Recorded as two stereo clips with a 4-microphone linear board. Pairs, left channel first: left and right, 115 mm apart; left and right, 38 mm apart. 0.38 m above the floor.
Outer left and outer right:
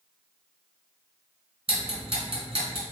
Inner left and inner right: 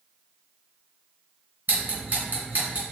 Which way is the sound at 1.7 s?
50° right (ahead or behind).